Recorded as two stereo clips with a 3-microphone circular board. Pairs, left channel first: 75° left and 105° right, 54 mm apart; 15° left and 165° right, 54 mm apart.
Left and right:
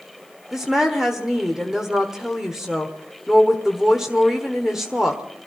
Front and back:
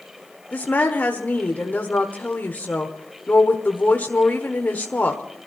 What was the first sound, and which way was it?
A woman speaking, 25° right.